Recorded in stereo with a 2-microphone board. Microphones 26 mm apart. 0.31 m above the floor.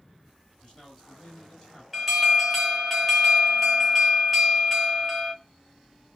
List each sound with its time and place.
0.6 s a man speaking: 20° left (ahead or behind), 1.9 m
1.9 s an alarm: 5° right (ahead or behind), 0.8 m